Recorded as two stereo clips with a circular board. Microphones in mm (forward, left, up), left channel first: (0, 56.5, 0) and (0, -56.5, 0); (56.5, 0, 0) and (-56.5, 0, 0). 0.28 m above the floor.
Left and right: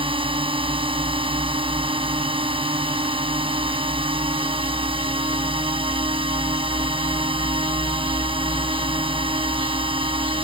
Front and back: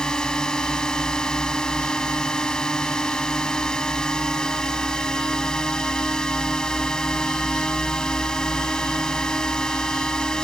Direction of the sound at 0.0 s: 80° right.